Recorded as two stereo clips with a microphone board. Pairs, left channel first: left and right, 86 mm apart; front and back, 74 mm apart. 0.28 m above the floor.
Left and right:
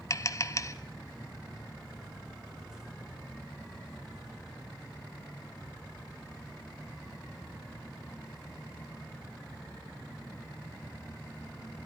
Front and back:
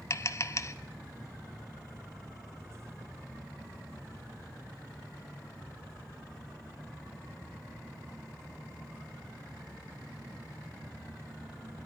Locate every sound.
0.1 s tapping: 40° left, 0.7 m